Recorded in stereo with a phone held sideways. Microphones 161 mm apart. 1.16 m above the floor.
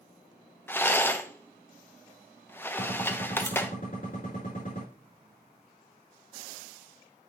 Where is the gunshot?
60° left (ahead or behind), 4 m.